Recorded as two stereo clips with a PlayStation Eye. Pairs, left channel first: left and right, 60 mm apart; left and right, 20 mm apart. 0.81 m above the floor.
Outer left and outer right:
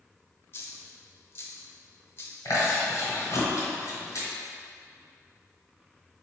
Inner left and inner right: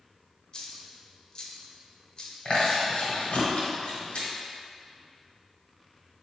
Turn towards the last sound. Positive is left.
turn(degrees=70)  # may be behind; listen again after turning